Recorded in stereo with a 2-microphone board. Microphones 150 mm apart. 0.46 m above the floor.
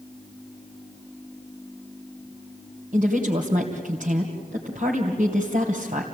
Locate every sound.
2.9 s a woman speaking: 65° right (ahead or behind), 2.5 m